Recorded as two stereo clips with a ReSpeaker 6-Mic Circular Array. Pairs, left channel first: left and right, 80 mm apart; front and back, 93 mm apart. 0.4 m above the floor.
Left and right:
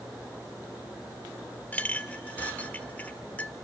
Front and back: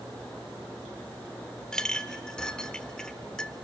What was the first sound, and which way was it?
A clink, 65° left.